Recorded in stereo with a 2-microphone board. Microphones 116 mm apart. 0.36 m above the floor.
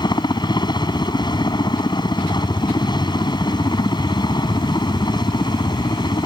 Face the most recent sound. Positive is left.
turn(degrees=40)  # may be behind; listen again after turning